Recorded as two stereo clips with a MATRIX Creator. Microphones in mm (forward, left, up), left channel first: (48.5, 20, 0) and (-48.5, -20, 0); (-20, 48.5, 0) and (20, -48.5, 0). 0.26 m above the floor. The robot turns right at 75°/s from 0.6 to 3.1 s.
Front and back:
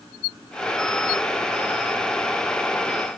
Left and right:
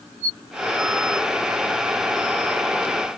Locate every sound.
Only background noise.